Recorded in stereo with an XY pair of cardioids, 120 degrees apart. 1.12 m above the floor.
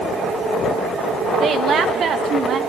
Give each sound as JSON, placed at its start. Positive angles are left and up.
{"t": 1.4, "sound": "a woman speaking", "azimuth_deg": -50, "distance_m": 1.1}